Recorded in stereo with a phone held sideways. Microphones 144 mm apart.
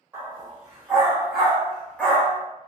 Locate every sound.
0.1 s a dog barking: 10° right (ahead or behind), 1.4 m; by 2.4 s 15° left (ahead or behind), 0.6 m